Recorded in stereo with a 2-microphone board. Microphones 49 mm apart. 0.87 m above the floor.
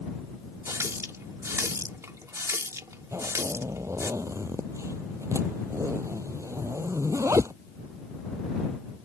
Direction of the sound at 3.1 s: 80° right.